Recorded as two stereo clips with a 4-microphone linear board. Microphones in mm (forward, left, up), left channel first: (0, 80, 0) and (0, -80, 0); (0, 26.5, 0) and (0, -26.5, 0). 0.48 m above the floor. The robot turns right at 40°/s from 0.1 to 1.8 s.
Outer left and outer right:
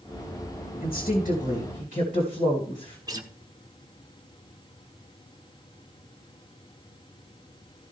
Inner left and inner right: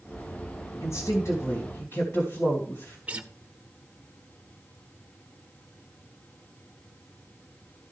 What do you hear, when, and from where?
0.8 s a woman speaking: 75° left, 2.5 m; by 3.0 s 115° left, 2.5 m
3.1 s a guitar: 20° right (ahead or behind), 0.9 m